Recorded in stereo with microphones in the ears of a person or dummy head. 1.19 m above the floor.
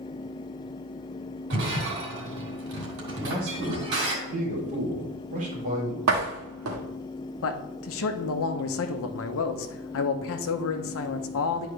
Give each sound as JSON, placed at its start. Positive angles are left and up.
{"t": 1.5, "sound": "breaking glass", "side_deg": -70, "distance_m": 3.0}
{"t": 3.1, "sound": "a man speaking", "side_deg": -40, "distance_m": 3.5}
{"t": 6.1, "sound": "a door slam", "side_deg": -80, "distance_m": 1.7}
{"t": 7.4, "sound": "a man speaking", "side_deg": 70, "distance_m": 0.9}